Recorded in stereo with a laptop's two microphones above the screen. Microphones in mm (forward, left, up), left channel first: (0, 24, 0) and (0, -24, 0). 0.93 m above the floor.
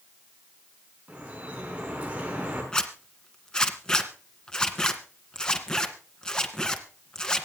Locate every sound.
1.1 s dripping: 25° right (ahead or behind), 6 m
2.7 s a zipper: 15° left (ahead or behind), 1.8 m